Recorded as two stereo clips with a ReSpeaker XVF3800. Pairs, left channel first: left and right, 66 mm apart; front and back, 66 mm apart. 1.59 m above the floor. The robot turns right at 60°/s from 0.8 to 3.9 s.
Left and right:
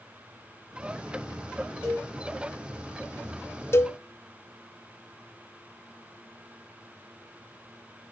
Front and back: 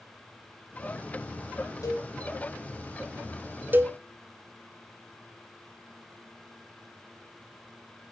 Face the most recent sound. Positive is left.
turn(degrees=135)